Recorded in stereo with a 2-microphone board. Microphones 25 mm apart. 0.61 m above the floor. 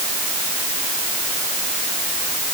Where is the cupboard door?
I don't hear a cupboard door.